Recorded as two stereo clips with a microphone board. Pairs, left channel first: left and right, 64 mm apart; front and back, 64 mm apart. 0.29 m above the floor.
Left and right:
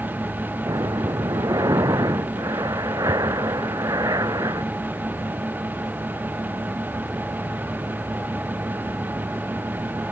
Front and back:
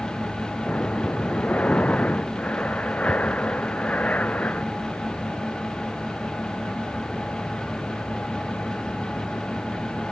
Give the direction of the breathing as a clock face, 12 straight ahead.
2 o'clock.